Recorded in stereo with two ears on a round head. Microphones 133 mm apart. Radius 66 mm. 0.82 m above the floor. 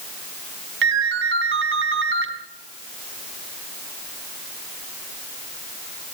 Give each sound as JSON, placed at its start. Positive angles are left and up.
{"t": 0.8, "sound": "a ringtone", "side_deg": -90, "distance_m": 4.0}